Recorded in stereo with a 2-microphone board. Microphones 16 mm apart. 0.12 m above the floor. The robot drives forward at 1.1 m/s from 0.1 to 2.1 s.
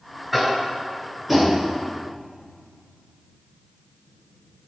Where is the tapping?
20° right (ahead or behind), 1.7 m; by 1.6 s 10° right (ahead or behind), 2.5 m.